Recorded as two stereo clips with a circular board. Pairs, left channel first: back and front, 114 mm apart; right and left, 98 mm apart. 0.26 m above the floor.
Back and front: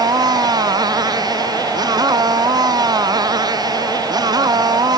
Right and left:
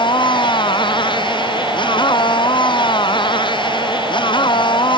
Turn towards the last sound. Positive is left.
turn(degrees=-55)